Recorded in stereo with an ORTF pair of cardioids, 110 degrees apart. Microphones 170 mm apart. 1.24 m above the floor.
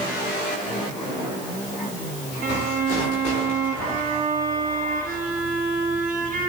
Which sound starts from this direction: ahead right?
A violin, at 2.4 s.